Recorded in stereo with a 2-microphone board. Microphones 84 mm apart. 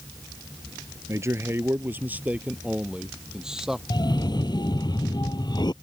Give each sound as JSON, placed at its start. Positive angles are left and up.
{"t": 1.1, "sound": "a man speaking", "side_deg": -35}
{"t": 3.9, "sound": "a cough", "side_deg": 60}